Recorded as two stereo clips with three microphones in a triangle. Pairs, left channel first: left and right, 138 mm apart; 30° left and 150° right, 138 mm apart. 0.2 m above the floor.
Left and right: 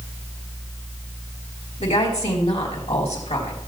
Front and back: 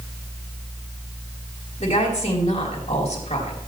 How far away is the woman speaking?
About 3 m.